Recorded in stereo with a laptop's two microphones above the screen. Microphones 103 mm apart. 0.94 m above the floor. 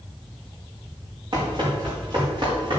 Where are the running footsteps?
55° right (ahead or behind), 5 m; by 2.8 s 60° right (ahead or behind), 6.5 m.